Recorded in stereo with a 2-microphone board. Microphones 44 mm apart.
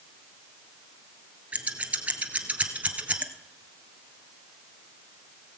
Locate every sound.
1.5 s scissors: 30° right (ahead or behind), 1.0 m